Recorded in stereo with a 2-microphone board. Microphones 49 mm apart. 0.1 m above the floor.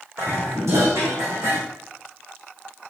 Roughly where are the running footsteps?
I don't hear running footsteps.